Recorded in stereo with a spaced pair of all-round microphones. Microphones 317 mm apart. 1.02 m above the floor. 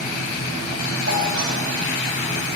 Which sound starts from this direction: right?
A doorbell, at 1.1 s.